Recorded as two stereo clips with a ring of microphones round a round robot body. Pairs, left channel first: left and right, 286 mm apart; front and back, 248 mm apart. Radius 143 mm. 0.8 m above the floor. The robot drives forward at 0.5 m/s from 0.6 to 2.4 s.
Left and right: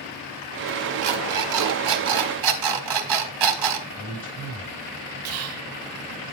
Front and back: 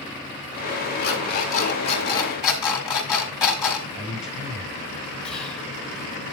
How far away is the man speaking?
About 6 m.